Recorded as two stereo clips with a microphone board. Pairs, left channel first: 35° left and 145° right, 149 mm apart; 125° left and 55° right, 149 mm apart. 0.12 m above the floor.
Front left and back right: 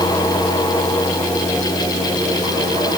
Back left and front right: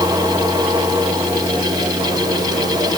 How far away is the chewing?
No chewing in this recording.